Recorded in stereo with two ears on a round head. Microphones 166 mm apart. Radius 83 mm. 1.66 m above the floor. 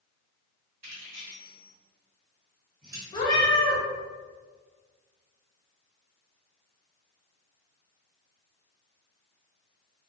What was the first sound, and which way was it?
Keys jangling, 40° right (ahead or behind).